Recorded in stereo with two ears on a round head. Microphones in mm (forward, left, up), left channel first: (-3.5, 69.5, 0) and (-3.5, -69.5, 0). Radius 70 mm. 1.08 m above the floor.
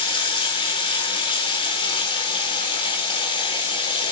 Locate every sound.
0.0 s running water: 30° left (ahead or behind), 4.5 m